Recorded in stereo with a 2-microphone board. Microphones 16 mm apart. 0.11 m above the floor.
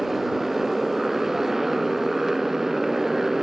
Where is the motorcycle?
10° right (ahead or behind); by 3.4 s 20° right (ahead or behind).